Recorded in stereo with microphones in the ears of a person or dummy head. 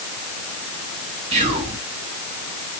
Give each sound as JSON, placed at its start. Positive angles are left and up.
{"t": 1.3, "sound": "whispering", "side_deg": -40, "distance_m": 2.5}